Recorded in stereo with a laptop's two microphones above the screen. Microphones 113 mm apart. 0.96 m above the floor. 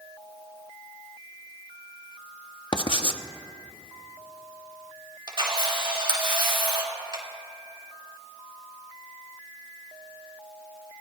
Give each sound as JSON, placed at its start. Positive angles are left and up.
{"t": 2.7, "sound": "writing", "side_deg": 45, "distance_m": 0.6}
{"t": 5.3, "sound": "a camera shutter", "side_deg": -45, "distance_m": 3.0}